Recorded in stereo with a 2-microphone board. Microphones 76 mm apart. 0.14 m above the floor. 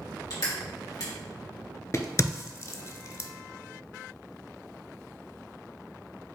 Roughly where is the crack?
Left.